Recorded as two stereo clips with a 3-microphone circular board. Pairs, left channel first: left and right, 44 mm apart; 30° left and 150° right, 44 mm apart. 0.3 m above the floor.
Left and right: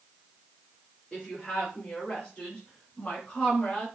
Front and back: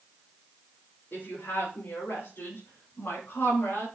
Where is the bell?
No bell in this recording.